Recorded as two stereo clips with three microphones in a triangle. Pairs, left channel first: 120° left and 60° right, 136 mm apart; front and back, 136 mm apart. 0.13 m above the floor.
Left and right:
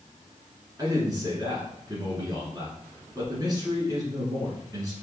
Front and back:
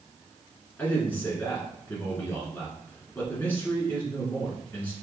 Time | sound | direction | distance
0.8 | a man speaking | 60° right | 1.4 m